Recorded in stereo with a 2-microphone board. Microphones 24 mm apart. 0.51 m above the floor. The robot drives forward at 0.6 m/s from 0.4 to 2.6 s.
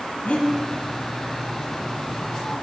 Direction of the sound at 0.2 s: 60° left (ahead or behind).